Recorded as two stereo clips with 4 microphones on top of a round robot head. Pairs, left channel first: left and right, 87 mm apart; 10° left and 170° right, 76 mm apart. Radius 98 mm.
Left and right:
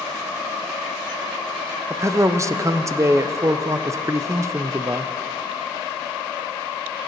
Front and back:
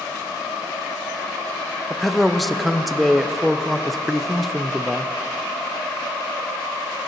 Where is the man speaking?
75° right, 0.6 m.